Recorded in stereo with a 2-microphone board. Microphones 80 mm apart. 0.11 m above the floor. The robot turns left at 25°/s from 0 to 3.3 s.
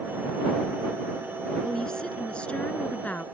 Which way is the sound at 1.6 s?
10° left (ahead or behind).